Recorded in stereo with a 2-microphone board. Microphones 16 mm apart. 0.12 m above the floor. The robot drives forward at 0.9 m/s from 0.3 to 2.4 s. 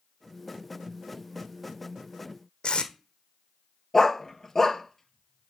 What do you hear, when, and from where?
2.6 s tape being pulled: 80° left, 1.1 m
3.9 s a dog barking: 25° left (ahead or behind), 0.9 m